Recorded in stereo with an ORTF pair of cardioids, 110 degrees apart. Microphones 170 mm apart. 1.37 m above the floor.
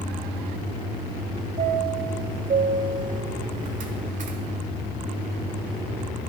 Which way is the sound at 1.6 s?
50° right.